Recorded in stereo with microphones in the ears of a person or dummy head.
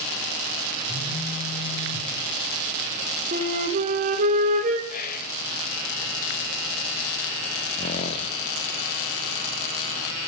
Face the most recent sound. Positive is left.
turn(degrees=25)  # may be behind; listen again after turning